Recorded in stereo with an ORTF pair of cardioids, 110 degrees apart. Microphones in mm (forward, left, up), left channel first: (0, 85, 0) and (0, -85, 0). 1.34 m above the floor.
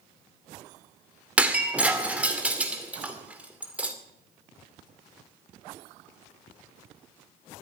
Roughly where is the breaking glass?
Ahead.